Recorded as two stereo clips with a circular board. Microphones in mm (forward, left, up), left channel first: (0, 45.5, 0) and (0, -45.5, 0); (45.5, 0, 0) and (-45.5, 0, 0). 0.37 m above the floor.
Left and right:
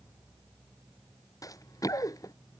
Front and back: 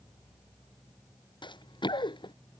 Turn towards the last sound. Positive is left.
turn(degrees=35)